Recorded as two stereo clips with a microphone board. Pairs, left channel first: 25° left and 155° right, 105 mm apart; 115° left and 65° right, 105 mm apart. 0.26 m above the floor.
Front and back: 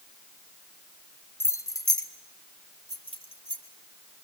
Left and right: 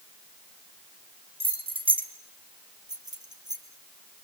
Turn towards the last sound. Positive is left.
turn(degrees=-15)